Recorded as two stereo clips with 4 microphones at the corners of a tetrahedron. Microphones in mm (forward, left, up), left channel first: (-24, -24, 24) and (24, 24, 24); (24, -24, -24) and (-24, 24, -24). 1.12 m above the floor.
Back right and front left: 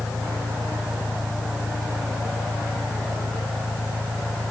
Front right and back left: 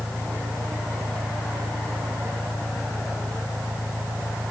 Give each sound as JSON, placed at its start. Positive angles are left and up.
{"t": 0.0, "sound": "an engine running", "azimuth_deg": 55}